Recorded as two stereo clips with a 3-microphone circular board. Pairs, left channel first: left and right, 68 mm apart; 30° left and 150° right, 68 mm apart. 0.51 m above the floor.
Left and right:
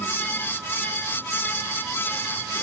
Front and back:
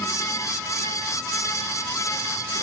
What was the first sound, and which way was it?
Only background noise.